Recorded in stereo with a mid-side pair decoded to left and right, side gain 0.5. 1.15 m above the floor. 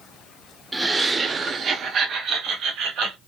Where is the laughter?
20° right, 0.7 m; by 3.2 s 75° right, 1.5 m.